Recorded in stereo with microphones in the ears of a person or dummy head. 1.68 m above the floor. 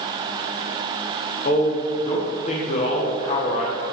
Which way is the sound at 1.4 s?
40° left (ahead or behind).